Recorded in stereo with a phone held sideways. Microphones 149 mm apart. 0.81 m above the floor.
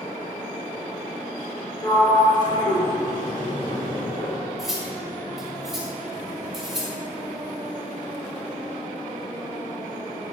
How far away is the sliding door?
About 2.5 m.